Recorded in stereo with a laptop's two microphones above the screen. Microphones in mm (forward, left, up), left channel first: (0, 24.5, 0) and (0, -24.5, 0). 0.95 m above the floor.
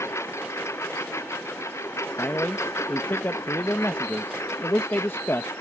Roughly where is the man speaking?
Left.